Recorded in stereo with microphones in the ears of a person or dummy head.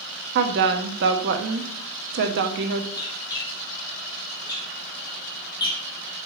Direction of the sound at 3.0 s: 25° left (ahead or behind).